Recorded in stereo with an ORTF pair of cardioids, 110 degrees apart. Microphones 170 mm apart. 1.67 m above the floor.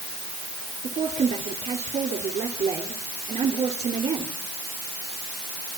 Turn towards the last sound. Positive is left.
turn(degrees=-35)